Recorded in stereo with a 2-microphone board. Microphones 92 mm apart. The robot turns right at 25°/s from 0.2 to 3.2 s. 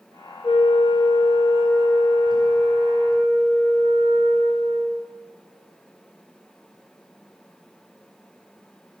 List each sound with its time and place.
0.4 s a flute: 120° left, 3 m; by 5.1 s 170° right, 3 m